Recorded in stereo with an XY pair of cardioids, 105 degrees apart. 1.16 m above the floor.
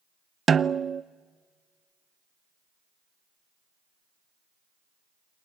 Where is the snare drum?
40° right, 0.6 m.